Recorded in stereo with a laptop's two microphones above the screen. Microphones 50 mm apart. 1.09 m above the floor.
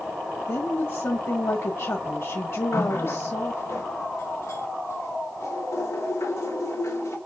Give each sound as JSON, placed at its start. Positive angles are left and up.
{"t": 0.5, "sound": "a woman speaking", "side_deg": 60, "distance_m": 1.4}
{"t": 2.7, "sound": "a running tap", "side_deg": 65, "distance_m": 2.5}